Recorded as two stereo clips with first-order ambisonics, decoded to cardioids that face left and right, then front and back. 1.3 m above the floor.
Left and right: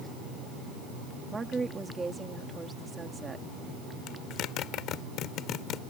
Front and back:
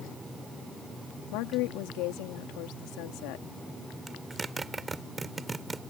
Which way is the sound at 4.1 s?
105° left.